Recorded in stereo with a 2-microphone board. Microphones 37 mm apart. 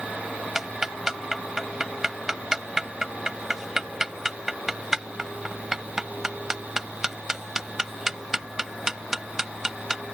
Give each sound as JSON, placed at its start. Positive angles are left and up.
{"t": 0.6, "sound": "ticking", "side_deg": -10}